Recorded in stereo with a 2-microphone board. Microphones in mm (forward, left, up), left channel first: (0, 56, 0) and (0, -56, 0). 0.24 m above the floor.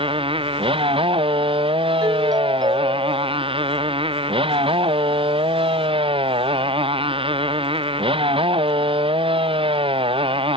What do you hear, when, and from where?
0.0 s a motorcycle: 50° right (ahead or behind)
2.0 s a doorbell: 35° right (ahead or behind)